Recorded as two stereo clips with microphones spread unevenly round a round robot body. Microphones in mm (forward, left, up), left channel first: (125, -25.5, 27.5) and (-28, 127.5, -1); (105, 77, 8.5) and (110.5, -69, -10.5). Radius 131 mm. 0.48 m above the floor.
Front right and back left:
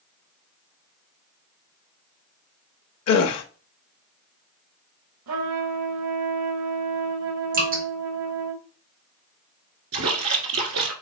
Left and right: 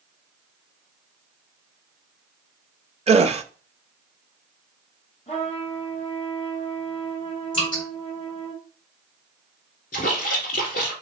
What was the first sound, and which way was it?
A gasp, 35° right.